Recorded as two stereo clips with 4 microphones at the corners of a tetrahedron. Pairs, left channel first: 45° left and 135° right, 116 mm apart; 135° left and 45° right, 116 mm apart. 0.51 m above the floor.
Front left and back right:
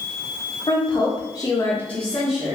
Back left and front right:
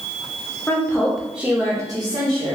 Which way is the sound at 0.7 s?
70° left.